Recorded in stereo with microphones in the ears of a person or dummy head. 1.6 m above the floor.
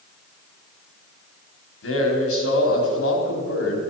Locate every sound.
1.8 s a man speaking: 85° left, 4.5 m